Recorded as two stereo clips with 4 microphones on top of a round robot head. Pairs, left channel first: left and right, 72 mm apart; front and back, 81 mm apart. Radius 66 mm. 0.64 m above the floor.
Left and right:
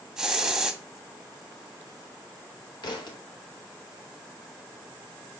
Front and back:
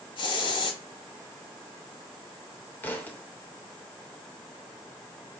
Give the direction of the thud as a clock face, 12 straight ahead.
10 o'clock.